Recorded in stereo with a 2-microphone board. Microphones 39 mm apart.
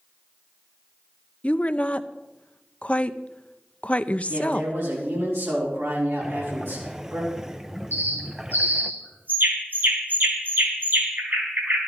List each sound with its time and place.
1.4 s a woman speaking: 35° left (ahead or behind), 0.5 m
4.3 s a man speaking: 85° right, 4 m
6.2 s breathing: 15° right (ahead or behind), 0.6 m
7.9 s a bird: 55° right (ahead or behind), 4 m